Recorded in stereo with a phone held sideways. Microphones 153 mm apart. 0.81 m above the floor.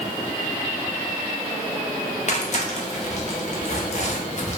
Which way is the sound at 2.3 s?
50° left (ahead or behind).